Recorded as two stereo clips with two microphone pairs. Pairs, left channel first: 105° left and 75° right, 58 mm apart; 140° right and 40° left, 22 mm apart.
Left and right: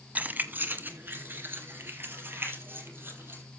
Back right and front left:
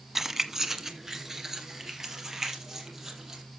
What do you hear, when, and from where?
0.1 s keys jangling: 30° right, 1.1 m